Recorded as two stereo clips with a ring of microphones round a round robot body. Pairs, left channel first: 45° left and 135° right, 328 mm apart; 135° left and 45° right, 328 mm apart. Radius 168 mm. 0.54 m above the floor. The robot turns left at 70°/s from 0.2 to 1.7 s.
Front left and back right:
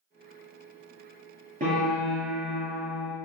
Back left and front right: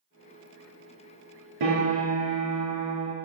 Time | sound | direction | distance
1.6 | a piano | 65° right | 2 m